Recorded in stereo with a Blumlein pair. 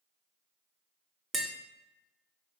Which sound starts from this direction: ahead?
Tapping, at 1.3 s.